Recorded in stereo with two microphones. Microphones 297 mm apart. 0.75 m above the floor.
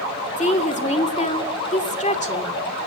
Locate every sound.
0.4 s a woman speaking: 25° left (ahead or behind), 2 m